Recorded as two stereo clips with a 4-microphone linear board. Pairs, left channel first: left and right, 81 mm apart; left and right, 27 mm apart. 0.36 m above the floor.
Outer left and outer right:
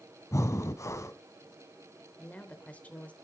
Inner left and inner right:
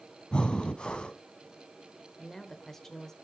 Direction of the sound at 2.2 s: 20° left (ahead or behind).